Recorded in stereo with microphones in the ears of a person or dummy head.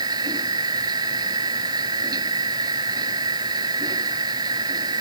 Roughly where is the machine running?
Right.